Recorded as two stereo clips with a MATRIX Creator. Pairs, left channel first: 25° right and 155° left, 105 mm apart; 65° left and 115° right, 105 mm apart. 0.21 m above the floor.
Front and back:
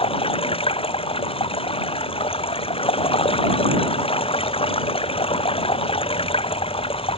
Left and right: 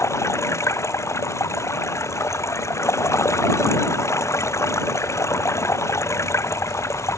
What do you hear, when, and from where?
0.0 s running water: 5° left